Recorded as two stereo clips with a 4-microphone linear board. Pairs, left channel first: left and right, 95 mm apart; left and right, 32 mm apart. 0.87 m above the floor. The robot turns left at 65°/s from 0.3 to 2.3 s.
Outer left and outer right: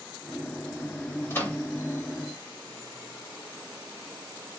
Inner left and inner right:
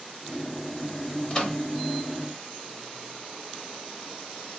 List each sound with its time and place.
1.3 s a microwave: 25° left (ahead or behind), 1.2 m; by 1.6 s 5° left (ahead or behind), 1.2 m